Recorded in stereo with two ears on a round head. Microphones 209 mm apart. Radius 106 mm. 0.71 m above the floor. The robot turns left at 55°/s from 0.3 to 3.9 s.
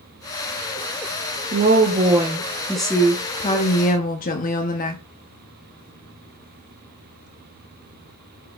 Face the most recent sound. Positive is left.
turn(degrees=120)